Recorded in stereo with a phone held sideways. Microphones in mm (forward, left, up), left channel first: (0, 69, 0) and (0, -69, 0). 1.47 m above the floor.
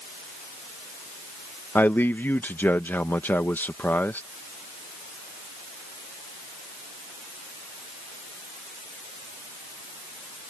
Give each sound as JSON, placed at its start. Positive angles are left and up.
{"t": 1.8, "sound": "a man speaking", "side_deg": 15}